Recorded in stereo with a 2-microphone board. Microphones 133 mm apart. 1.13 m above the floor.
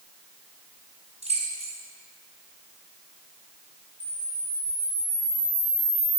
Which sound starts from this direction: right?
Keys jangling, at 1.2 s.